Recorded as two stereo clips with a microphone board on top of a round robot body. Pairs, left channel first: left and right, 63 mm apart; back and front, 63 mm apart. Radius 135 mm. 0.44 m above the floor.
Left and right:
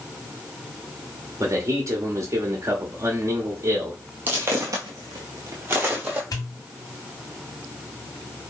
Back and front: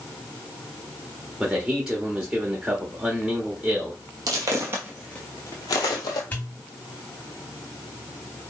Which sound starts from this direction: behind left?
A pop, at 6.3 s.